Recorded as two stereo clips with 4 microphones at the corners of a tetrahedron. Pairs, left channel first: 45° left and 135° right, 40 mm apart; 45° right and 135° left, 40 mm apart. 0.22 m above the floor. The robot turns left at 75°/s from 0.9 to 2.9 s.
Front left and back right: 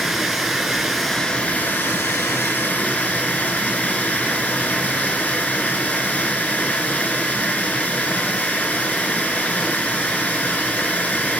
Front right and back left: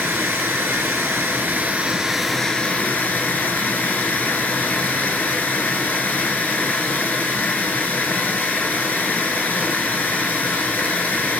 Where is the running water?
145° left, 0.7 m; by 11.4 s 5° right, 0.7 m.